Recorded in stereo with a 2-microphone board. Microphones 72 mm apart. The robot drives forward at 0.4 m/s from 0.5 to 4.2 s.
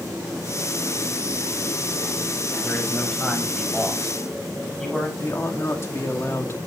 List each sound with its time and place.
2.6 s a man speaking: 5° left (ahead or behind), 4 m
5.2 s a man speaking: 40° left (ahead or behind), 2 m